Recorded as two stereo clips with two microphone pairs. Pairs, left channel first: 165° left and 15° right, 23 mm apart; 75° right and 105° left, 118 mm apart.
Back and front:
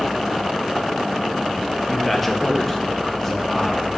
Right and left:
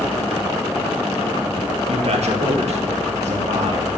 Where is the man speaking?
75° left, 0.9 m; by 4.0 s 85° left, 2 m.